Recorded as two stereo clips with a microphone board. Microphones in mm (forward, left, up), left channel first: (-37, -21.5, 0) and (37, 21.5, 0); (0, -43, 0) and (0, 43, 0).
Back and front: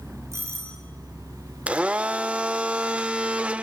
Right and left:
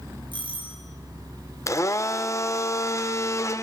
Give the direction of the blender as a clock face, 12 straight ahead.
1 o'clock.